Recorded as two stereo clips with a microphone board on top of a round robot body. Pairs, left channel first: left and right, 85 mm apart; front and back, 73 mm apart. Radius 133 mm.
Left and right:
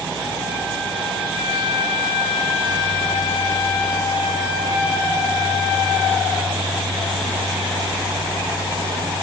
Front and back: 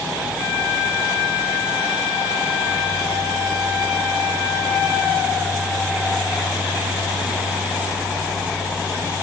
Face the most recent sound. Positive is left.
No sound to turn to.